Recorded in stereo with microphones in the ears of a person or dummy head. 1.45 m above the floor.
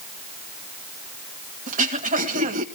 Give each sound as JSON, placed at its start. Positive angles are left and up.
{"t": 1.7, "sound": "throat clearing", "side_deg": -45, "distance_m": 1.6}